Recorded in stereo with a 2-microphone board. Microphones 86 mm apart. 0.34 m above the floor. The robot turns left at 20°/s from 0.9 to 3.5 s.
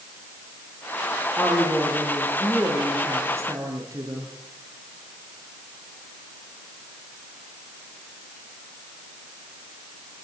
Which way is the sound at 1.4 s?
5° left.